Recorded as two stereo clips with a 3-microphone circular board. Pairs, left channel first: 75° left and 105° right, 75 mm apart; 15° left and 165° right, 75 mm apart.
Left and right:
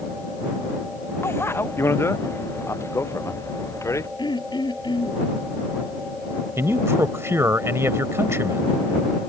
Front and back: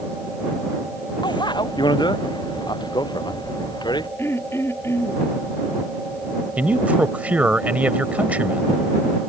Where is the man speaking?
110° right.